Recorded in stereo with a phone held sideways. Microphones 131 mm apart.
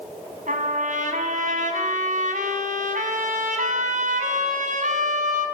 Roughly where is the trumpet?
Right.